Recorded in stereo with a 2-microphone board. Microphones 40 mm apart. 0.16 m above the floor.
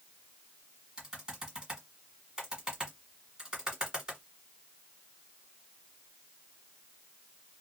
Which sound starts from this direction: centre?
Typing on a keyboard, at 1.0 s.